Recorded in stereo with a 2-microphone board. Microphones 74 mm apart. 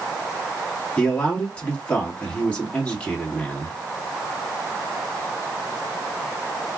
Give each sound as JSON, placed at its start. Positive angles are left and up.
{"t": 1.0, "sound": "a man speaking", "side_deg": 15, "distance_m": 1.4}